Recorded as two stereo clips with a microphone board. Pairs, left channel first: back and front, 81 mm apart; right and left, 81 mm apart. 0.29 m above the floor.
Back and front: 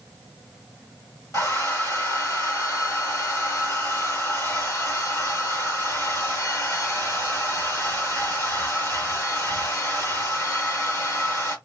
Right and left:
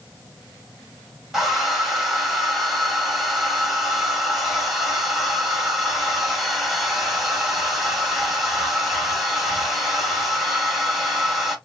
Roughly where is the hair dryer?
Behind.